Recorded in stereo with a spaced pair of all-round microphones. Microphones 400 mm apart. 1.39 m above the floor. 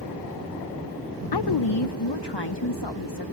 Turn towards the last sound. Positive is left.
turn(degrees=80)